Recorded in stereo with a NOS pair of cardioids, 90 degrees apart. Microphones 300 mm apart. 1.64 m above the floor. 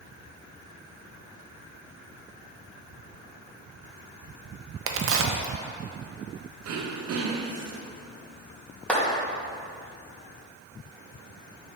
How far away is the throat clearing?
About 0.9 m.